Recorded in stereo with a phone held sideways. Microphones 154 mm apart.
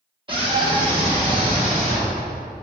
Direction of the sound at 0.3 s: 35° right (ahead or behind).